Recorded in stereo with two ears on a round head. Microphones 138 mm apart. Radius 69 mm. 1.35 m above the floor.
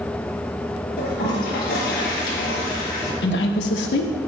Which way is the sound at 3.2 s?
80° left.